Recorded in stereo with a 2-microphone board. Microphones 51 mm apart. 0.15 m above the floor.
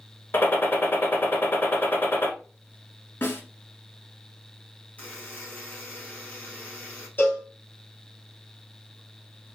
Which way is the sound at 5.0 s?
30° left (ahead or behind).